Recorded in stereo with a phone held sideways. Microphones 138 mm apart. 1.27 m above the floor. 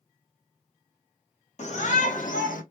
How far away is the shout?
About 1.2 m.